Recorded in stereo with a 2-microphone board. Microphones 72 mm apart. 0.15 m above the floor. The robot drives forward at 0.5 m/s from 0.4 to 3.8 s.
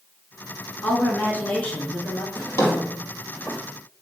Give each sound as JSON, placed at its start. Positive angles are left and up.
{"t": 0.8, "sound": "a woman speaking", "side_deg": 20, "distance_m": 1.9}
{"t": 2.4, "sound": "a drawer", "side_deg": 40, "distance_m": 2.0}